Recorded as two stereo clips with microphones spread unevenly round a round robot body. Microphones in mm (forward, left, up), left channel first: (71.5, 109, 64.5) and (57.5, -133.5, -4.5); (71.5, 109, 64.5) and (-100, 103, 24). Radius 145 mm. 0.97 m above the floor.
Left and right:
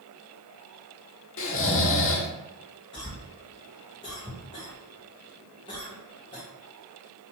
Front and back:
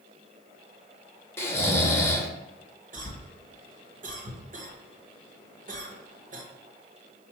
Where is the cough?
170° left, 1.0 m.